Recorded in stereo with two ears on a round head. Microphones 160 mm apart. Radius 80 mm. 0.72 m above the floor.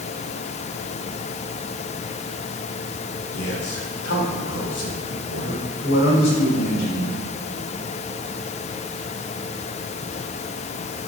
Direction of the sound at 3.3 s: 60° left (ahead or behind).